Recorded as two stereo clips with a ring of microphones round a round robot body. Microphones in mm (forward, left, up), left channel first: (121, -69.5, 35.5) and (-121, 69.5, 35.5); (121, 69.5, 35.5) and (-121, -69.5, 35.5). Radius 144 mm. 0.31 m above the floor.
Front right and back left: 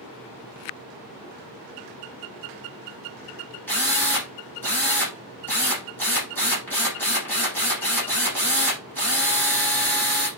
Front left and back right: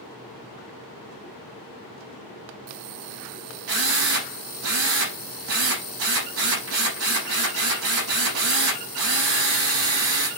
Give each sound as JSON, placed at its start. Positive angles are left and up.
{"t": 3.7, "sound": "a drill", "azimuth_deg": -110, "distance_m": 7.5}